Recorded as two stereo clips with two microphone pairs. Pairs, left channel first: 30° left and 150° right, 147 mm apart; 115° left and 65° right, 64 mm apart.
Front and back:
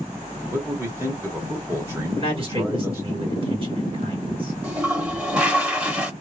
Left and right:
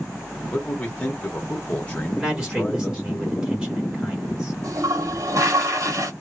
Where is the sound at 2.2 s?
130° right, 1.7 m.